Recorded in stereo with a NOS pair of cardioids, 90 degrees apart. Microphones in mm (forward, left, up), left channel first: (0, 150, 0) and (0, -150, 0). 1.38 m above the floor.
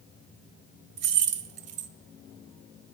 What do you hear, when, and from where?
1.0 s keys jangling: 60° right, 0.7 m